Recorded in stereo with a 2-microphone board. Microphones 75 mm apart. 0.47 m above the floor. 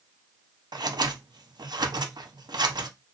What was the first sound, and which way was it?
Scissors, 75° right (ahead or behind).